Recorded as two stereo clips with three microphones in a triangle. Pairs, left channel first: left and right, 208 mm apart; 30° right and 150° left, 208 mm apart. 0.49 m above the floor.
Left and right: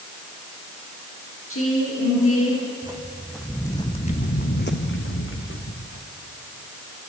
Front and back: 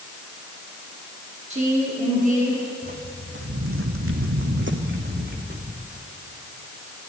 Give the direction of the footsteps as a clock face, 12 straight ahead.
5 o'clock.